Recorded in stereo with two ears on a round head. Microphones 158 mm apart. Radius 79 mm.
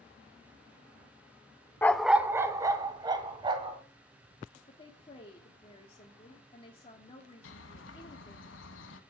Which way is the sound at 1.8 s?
15° left (ahead or behind).